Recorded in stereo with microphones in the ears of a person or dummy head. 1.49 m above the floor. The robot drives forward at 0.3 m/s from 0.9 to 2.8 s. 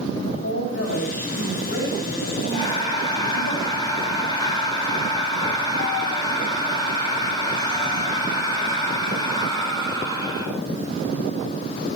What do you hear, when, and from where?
0.1 s a woman speaking: 70° left (ahead or behind), 6.5 m; by 3.5 s 65° left (ahead or behind), 7 m
2.5 s breathing: 30° left (ahead or behind), 4.5 m